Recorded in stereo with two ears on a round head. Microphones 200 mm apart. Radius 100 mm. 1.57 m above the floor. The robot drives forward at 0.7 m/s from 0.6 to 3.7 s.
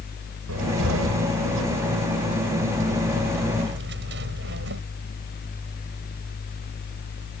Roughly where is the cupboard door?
Right.